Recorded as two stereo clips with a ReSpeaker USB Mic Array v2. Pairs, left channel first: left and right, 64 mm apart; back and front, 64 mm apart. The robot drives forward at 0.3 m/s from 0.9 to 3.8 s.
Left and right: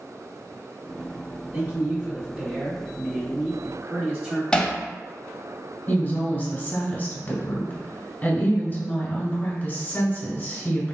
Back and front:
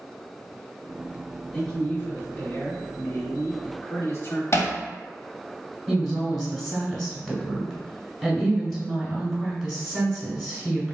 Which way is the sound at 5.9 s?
95° left.